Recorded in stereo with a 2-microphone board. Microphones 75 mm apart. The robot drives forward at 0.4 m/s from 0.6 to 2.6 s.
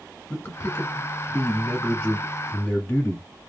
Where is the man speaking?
25° left (ahead or behind), 1.6 m; by 3.3 s 20° left (ahead or behind), 1.8 m.